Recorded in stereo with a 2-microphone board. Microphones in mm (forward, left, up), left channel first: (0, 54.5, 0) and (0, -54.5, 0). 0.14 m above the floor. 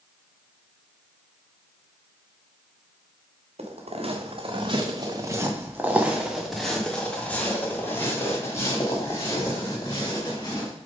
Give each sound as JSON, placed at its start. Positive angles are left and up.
{"t": 3.6, "sound": "footsteps", "side_deg": -70, "distance_m": 1.6}